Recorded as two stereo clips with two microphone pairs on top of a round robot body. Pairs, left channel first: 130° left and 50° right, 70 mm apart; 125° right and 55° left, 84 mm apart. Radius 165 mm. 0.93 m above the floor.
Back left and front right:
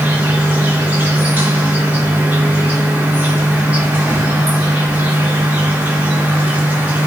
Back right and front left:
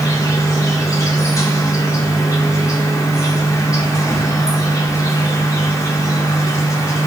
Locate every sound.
0.0 s an insect: 105° right, 1.4 m